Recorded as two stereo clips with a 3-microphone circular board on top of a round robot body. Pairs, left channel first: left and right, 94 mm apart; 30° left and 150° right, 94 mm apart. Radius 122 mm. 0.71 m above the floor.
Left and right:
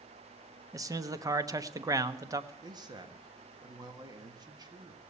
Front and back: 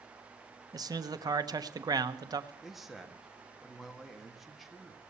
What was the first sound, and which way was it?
A man speaking, 125° right.